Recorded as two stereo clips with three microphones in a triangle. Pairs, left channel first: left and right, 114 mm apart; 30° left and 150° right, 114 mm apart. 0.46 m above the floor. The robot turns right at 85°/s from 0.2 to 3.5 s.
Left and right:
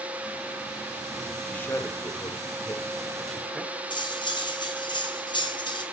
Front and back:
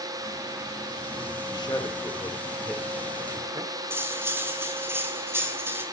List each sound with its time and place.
1.4 s a man speaking: 15° left, 1.5 m; by 3.7 s 170° right, 1.5 m
3.9 s cutlery clinking: 140° left, 2 m